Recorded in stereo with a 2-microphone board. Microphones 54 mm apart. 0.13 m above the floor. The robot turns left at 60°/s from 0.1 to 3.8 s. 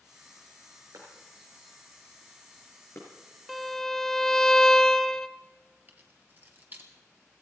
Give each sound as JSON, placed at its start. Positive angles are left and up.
{"t": 0.9, "sound": "a clap", "side_deg": -75, "distance_m": 6.0}
{"t": 3.5, "sound": "a violin", "side_deg": 0, "distance_m": 0.6}
{"t": 5.9, "sound": "keys jangling", "side_deg": -35, "distance_m": 1.8}